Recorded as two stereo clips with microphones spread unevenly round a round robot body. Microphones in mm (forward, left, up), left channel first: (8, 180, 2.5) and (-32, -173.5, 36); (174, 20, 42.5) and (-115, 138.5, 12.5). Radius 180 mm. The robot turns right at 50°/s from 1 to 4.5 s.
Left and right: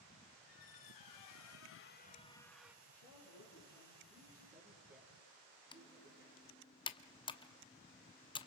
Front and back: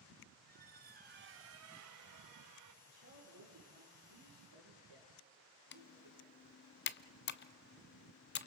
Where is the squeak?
100° left, 0.6 m; by 2.8 s 175° right, 0.6 m.